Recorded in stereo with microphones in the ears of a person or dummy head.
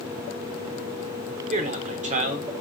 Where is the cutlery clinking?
No cutlery clinking in this recording.